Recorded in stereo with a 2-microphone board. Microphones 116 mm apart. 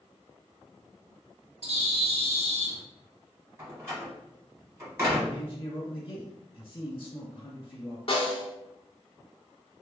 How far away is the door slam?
About 1.8 m.